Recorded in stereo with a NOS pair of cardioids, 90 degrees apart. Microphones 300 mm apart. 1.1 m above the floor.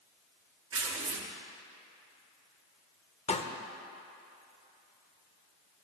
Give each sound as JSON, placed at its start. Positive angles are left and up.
{"t": 0.7, "sound": "tearing paper", "azimuth_deg": -50, "distance_m": 1.4}
{"t": 3.3, "sound": "a pop", "azimuth_deg": 20, "distance_m": 0.9}